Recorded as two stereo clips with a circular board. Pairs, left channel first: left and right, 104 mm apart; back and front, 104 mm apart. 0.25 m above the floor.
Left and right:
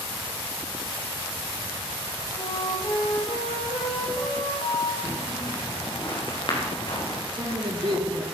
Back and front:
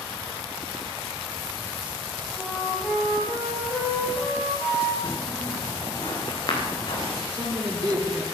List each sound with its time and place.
2.4 s a flute: 90° left, 5 m
5.0 s footsteps: 130° left, 7 m; by 7.2 s 135° left, 6 m
7.3 s a man speaking: 50° right, 4.5 m